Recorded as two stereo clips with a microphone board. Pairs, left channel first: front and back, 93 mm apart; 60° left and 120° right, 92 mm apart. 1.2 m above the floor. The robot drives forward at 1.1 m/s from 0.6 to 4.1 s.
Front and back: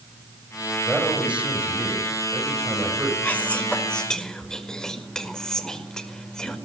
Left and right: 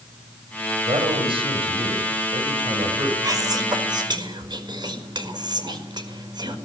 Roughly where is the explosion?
No explosion in this recording.